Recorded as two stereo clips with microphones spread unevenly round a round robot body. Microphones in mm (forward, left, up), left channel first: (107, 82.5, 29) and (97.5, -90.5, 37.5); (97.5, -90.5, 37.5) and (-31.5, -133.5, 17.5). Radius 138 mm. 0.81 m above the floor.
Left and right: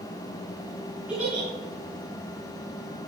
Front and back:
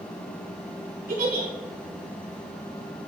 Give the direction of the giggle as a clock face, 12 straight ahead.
6 o'clock.